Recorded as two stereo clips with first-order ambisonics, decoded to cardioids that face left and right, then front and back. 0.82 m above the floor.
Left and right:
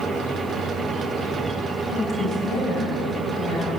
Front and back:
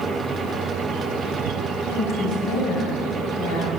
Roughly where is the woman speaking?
Ahead left.